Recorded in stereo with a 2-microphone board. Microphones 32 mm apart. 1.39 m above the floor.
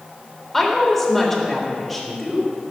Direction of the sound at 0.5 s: 5° left (ahead or behind).